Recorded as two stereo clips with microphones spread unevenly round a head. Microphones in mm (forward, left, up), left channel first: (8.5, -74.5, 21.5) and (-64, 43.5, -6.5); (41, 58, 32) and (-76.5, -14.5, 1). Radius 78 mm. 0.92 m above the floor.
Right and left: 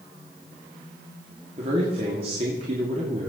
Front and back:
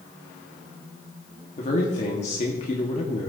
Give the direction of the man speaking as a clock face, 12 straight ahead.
10 o'clock.